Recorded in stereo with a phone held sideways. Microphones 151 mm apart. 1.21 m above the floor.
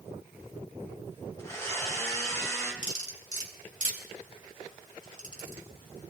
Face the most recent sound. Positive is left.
turn(degrees=55)  # may be behind; listen again after turning